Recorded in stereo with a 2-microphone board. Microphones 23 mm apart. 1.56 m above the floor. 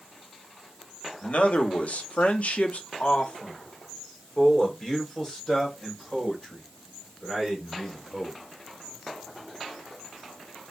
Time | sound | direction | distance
1.2 | a man speaking | 60° left (ahead or behind) | 1.1 m